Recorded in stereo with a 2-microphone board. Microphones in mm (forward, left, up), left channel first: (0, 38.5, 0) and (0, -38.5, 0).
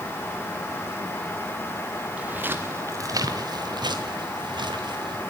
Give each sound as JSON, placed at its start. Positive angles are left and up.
{"t": 2.2, "sound": "footsteps", "side_deg": -15, "distance_m": 2.5}